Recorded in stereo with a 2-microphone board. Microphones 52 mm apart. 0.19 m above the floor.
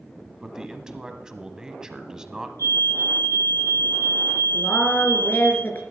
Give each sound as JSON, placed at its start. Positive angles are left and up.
{"t": 0.4, "sound": "a man speaking", "side_deg": -15, "distance_m": 1.0}
{"t": 2.6, "sound": "a fire alarm", "side_deg": 70, "distance_m": 6.5}
{"t": 4.5, "sound": "a woman speaking", "side_deg": 35, "distance_m": 3.0}